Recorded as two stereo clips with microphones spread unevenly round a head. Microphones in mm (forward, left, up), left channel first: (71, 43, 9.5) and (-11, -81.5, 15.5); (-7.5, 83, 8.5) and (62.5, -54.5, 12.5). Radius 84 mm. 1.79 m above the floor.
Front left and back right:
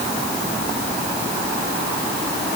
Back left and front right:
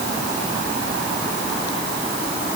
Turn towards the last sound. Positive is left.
No sound to turn to.